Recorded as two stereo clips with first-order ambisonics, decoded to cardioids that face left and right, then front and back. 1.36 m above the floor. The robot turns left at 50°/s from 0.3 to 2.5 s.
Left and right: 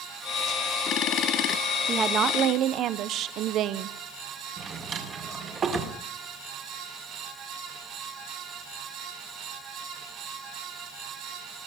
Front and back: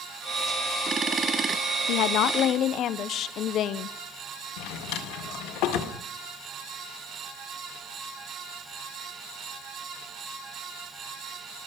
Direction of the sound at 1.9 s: 20° right.